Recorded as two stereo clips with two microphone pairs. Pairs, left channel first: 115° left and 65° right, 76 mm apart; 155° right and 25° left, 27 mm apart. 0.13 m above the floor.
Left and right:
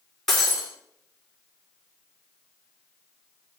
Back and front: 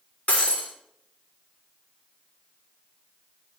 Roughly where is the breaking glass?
Behind.